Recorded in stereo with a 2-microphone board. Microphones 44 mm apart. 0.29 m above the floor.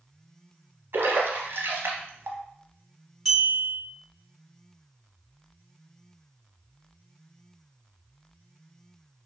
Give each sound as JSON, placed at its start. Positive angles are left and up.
{"t": 0.9, "sound": "a splash", "side_deg": -65, "distance_m": 0.6}
{"t": 3.2, "sound": "a clink", "side_deg": -5, "distance_m": 1.6}